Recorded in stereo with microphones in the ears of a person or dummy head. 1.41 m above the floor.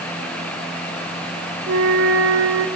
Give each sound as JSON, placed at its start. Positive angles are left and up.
{"t": 1.7, "sound": "a flute", "side_deg": -80, "distance_m": 2.5}